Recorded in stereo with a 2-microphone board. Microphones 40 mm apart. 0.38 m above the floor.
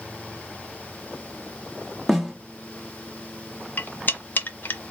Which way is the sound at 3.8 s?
55° left (ahead or behind).